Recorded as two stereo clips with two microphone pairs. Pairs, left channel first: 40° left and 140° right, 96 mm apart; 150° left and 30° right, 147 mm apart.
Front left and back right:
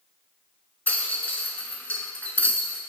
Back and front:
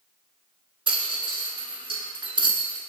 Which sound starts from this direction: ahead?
A rattle, at 0.9 s.